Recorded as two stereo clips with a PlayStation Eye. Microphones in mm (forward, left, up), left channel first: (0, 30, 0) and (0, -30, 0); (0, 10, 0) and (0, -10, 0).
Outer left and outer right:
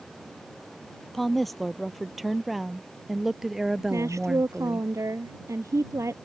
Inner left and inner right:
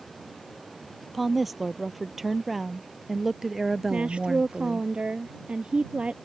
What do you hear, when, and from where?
1.1 s a woman speaking: centre (ahead or behind); by 4.9 s 15° right (ahead or behind)
3.9 s a woman speaking: 60° right (ahead or behind)